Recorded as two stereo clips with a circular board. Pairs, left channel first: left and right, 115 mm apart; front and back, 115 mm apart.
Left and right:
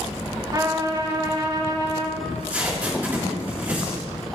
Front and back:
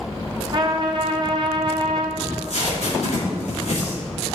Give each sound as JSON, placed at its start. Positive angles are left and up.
{"t": 0.5, "sound": "a trumpet", "azimuth_deg": -140, "distance_m": 0.9}
{"t": 2.2, "sound": "tape being pulled", "azimuth_deg": -15, "distance_m": 3.5}